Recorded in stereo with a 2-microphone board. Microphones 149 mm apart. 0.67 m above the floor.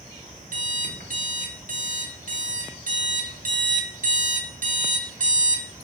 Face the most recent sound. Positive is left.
turn(degrees=-65)  # may be behind; listen again after turning